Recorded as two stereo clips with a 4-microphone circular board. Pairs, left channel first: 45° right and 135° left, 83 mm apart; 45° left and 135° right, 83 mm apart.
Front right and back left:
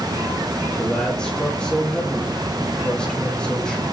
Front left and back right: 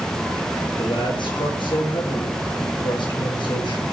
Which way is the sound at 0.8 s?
35° left.